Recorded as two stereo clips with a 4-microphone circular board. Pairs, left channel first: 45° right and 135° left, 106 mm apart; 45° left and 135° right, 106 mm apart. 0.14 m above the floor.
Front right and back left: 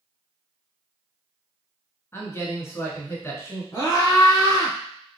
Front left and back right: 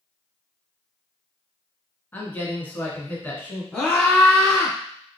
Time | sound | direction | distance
2.1 | a man speaking | 10° right | 1.2 m
3.7 | a scream | 25° right | 1.6 m